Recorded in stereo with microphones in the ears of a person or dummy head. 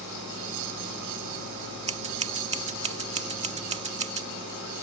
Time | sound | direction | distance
1.9 | scissors | 30° right (ahead or behind) | ?